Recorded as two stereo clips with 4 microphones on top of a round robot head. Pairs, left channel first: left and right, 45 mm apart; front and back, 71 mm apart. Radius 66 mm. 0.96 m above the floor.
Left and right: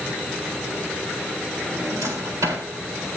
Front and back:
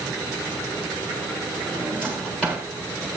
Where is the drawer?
80° right, 3.5 m.